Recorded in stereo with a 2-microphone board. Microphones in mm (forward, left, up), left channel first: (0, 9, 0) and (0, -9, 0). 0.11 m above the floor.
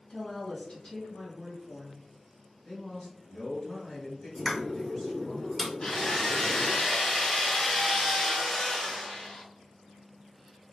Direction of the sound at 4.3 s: 25° left (ahead or behind).